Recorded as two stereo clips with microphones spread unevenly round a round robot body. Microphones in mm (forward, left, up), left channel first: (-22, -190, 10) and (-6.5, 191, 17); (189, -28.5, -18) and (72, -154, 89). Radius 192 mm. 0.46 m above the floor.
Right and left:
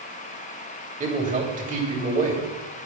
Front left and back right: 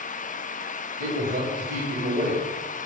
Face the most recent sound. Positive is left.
turn(degrees=155)